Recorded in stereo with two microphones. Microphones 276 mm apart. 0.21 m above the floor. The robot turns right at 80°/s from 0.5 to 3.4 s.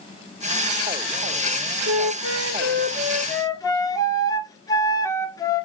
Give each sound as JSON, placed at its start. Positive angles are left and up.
{"t": 1.9, "sound": "a flute", "azimuth_deg": -110, "distance_m": 0.5}